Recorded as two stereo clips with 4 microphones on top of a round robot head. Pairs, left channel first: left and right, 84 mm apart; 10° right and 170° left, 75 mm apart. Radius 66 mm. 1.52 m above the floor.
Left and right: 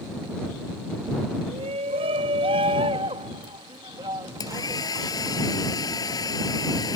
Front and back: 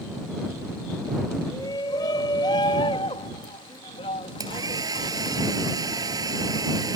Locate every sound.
1.5 s a shout: 65° right; by 5.4 s 20° right
4.4 s a hair dryer: 135° left